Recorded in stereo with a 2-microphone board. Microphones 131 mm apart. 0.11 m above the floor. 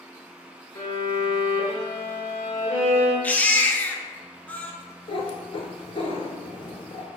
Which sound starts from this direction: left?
A cat meowing, at 5.1 s.